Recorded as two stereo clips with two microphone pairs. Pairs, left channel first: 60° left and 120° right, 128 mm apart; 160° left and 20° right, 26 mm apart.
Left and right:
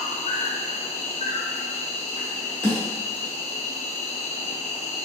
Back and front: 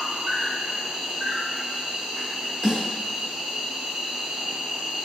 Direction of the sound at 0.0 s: 35° left.